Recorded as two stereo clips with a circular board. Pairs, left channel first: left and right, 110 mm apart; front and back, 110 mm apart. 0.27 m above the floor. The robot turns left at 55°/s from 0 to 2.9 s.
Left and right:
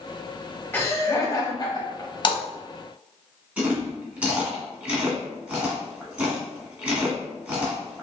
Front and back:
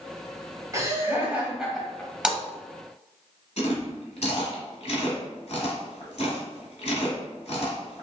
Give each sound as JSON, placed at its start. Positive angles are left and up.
{"t": 0.7, "sound": "laughter", "azimuth_deg": 145, "distance_m": 1.3}
{"t": 2.2, "sound": "a splash", "azimuth_deg": 100, "distance_m": 0.7}
{"t": 3.6, "sound": "chewing", "azimuth_deg": -15, "distance_m": 1.5}